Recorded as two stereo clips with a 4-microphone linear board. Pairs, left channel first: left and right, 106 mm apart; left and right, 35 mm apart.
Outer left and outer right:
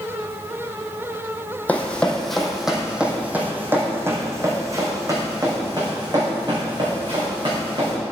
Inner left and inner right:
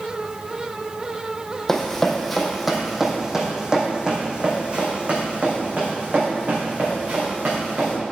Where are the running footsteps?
15° left (ahead or behind), 1.5 m; by 8.0 s 45° right (ahead or behind), 3.5 m.